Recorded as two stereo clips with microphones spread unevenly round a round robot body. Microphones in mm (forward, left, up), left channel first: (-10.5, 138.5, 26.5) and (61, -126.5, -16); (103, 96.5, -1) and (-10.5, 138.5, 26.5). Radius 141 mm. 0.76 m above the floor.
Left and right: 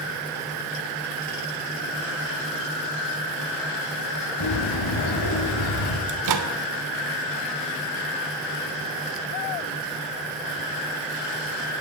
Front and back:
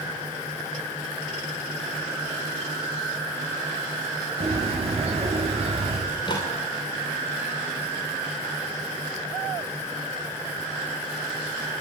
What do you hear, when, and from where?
4.4 s a bird: 120° left, 6 m
6.1 s a microwave: 85° right, 2.5 m